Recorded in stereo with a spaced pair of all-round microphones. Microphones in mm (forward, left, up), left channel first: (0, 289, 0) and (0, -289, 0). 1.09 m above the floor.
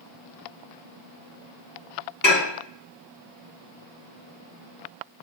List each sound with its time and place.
2.2 s dishes clattering: 30° left (ahead or behind), 3 m